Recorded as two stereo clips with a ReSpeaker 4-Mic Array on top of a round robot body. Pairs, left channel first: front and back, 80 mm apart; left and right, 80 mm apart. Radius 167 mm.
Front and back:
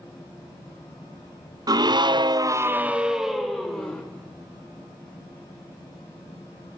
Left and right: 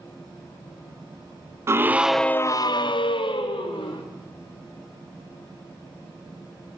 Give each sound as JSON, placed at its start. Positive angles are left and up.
{"t": 1.7, "sound": "a scream", "azimuth_deg": -145, "distance_m": 1.2}